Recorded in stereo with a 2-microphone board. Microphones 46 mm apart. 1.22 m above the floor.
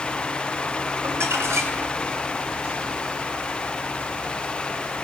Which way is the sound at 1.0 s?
85° right.